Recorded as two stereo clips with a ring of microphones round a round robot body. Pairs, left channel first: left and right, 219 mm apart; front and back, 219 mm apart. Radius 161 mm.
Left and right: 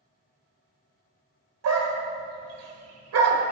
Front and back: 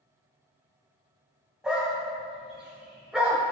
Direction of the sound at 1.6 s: 95° right.